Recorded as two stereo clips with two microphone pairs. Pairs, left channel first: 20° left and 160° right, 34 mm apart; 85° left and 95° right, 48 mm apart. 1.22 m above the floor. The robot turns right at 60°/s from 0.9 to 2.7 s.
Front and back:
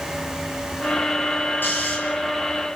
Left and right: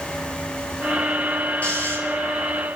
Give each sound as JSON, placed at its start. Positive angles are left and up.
{"t": 1.6, "sound": "snoring", "azimuth_deg": 25, "distance_m": 10.0}